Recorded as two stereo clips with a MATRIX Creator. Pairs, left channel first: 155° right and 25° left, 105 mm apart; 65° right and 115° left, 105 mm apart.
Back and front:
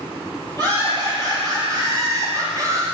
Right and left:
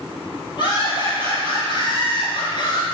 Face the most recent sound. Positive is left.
turn(degrees=-35)